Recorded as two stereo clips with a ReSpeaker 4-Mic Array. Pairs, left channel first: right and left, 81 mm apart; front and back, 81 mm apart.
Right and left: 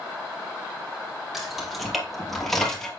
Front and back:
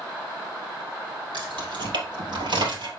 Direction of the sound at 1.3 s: 175° left.